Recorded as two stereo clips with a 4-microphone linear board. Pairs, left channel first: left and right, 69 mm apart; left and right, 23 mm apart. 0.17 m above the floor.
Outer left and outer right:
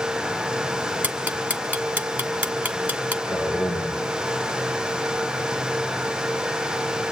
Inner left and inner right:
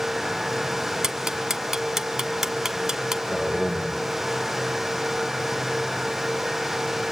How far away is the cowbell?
I don't hear a cowbell.